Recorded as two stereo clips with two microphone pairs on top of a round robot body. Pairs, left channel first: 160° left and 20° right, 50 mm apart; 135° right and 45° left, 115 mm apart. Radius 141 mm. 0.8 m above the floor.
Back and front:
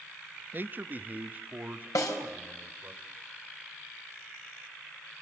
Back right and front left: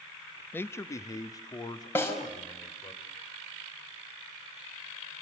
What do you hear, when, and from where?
0.5 s a man speaking: 65° right, 0.8 m; by 3.0 s 80° right, 3.5 m
1.9 s a snare drum: 155° left, 5 m